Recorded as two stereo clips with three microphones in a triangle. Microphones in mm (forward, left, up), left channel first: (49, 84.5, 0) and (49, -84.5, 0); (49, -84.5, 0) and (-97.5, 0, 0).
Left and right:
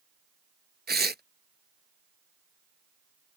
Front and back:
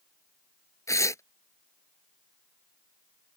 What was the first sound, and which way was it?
Tearing paper, 100° right.